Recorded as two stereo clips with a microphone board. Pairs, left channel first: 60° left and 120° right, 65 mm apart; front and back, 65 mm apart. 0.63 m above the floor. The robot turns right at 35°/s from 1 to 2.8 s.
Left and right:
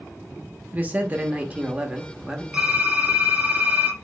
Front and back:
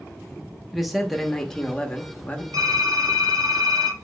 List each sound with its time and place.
0.7 s a man speaking: 95° right, 0.7 m; by 2.4 s 45° right, 0.7 m
2.5 s typing on a keyboard: 165° left, 2 m; by 4.0 s 175° left, 2 m